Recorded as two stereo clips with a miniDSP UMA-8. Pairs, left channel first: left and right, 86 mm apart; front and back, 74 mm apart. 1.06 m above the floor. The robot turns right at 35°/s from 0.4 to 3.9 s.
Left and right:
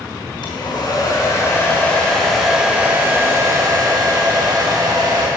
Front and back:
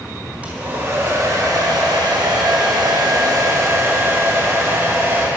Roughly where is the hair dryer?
Left.